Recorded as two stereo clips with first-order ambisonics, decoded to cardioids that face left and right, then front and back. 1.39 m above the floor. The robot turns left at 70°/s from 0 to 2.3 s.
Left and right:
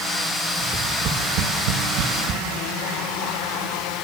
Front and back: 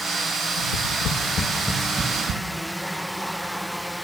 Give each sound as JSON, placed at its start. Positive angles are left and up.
{"t": 0.6, "sound": "tapping", "azimuth_deg": -10, "distance_m": 3.0}